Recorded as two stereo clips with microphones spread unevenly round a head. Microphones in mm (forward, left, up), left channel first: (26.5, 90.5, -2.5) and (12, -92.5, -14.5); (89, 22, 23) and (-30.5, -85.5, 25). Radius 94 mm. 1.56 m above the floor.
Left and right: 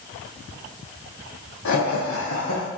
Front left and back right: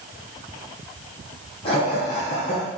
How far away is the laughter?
About 1.0 m.